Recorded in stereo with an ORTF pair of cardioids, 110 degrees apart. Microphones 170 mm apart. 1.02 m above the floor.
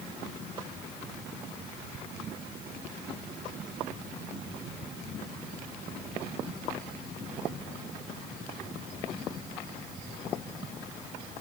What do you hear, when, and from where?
Only background noise.